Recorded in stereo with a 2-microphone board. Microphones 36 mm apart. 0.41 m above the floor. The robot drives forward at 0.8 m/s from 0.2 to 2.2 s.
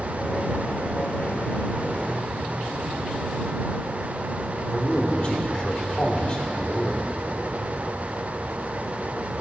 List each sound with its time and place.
4.7 s a man speaking: 25° left (ahead or behind), 1.1 m